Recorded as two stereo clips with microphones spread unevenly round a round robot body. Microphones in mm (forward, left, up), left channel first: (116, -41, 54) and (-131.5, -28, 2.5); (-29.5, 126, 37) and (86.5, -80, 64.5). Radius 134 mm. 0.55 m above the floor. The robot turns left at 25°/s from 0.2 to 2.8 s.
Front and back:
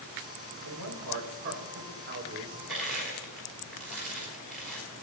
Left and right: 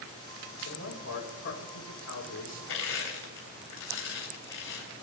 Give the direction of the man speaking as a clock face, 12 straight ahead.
7 o'clock.